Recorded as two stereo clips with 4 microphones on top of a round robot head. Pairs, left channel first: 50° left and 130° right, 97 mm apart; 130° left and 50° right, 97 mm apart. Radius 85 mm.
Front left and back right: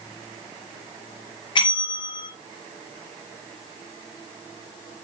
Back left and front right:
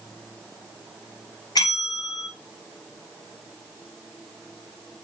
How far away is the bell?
About 2 m.